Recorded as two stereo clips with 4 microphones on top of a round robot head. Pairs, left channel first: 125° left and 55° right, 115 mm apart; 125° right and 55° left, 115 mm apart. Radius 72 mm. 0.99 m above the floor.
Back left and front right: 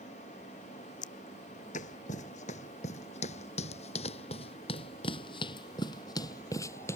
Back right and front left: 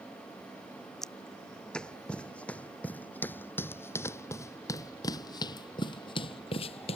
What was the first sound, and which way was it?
Footsteps, 145° left.